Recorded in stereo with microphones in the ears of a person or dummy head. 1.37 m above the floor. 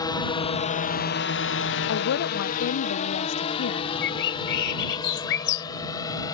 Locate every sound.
0.0 s a drone: 15° left (ahead or behind); by 6.3 s 35° left (ahead or behind)
1.9 s a woman speaking: 60° left (ahead or behind)
4.0 s a bird: 65° left (ahead or behind)